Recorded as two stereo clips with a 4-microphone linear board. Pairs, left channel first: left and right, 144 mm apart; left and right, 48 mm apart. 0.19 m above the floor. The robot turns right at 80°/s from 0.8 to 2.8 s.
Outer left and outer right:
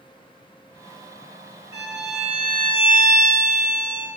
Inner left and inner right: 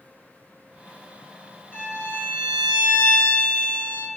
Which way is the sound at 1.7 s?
30° right (ahead or behind).